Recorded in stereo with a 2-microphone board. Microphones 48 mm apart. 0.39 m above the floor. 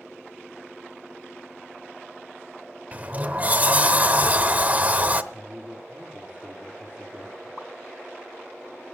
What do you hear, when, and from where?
2.9 s a sliding door: 30° right (ahead or behind), 0.8 m
5.3 s a man speaking: 30° right (ahead or behind), 8 m
7.6 s a pop: 15° left (ahead or behind), 1.2 m